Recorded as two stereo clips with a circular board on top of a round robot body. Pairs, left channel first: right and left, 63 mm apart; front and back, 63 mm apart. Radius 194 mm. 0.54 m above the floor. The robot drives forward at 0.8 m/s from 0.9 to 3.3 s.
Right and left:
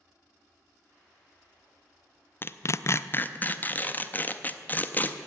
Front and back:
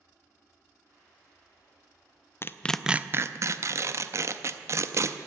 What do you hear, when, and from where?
2.4 s tearing paper: 40° right, 0.6 m; by 5.2 s 150° right, 0.7 m